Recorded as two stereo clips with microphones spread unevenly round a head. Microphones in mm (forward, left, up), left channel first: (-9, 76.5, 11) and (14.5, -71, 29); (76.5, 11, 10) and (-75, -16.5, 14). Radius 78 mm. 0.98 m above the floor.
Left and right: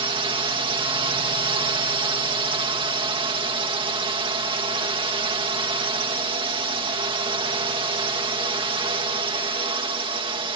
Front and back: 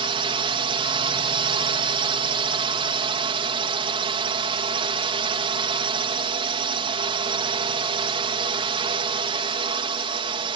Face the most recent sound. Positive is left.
turn(degrees=-130)